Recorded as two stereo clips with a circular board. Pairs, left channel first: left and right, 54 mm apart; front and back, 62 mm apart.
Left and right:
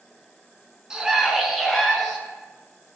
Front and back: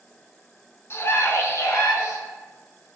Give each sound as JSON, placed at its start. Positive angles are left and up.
{"t": 0.9, "sound": "a scream", "azimuth_deg": -15, "distance_m": 1.4}